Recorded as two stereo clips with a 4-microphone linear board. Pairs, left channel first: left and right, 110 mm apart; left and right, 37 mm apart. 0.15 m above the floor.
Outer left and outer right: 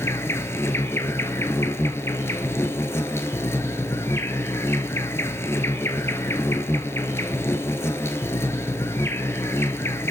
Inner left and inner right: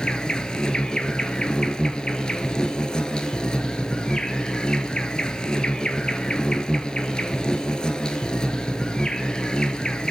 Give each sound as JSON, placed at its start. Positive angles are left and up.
{"t": 0.0, "sound": "an insect", "side_deg": 25, "distance_m": 1.0}